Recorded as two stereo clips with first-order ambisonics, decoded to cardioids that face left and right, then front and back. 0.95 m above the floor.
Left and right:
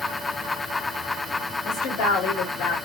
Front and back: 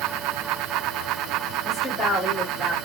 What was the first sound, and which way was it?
A woman speaking, 80° left.